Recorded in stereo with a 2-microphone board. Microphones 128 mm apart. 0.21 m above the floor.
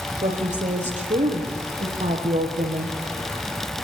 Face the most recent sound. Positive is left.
turn(degrees=-75)  # may be behind; listen again after turning